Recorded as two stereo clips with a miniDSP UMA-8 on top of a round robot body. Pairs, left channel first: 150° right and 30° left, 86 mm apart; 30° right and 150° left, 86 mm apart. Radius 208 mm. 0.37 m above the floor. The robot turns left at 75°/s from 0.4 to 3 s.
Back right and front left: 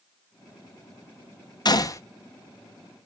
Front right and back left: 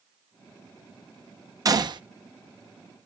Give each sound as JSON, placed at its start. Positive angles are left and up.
{"t": 1.6, "sound": "a gunshot", "azimuth_deg": -175, "distance_m": 1.1}